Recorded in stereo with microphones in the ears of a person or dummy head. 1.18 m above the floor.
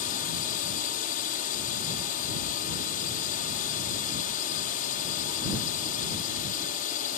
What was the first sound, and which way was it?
A drone, 55° left (ahead or behind).